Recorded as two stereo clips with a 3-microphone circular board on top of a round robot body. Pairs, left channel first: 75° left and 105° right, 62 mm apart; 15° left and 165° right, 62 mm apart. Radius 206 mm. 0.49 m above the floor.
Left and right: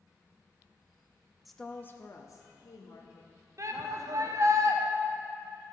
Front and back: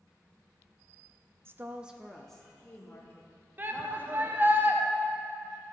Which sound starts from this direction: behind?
A woman speaking, at 1.4 s.